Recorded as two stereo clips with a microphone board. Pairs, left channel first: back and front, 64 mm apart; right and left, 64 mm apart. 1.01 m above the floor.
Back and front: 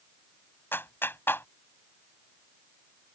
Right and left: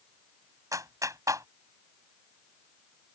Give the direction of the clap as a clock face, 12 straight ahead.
8 o'clock.